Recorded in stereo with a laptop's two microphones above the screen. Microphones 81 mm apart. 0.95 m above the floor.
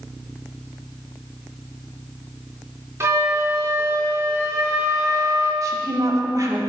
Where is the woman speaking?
45° right (ahead or behind), 2.5 m.